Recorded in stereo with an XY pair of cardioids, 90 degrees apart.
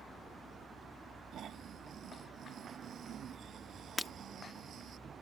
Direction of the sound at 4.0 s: 15° left.